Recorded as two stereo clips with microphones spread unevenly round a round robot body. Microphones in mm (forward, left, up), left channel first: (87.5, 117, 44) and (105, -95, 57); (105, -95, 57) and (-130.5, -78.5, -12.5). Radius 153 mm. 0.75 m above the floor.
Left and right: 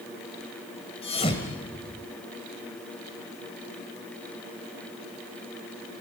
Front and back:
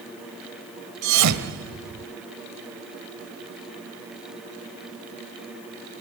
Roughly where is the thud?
Behind.